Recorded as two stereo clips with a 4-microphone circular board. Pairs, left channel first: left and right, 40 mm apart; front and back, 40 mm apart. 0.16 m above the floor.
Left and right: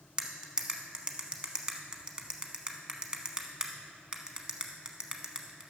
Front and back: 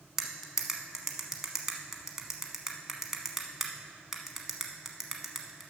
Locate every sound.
0.2 s cutlery clinking: 115° right, 0.8 m